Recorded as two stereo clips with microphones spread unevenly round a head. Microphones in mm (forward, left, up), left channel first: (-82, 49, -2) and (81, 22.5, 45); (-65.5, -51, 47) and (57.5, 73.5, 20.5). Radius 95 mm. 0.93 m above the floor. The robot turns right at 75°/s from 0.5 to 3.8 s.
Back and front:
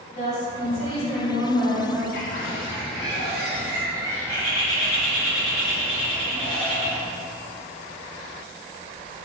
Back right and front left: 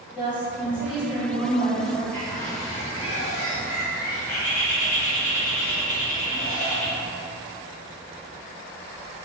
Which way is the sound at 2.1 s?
155° left.